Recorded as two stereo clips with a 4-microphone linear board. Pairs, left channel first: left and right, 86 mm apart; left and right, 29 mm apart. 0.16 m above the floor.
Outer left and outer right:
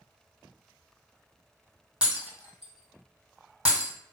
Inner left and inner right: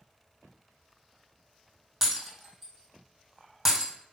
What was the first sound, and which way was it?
Breaking glass, 10° right (ahead or behind).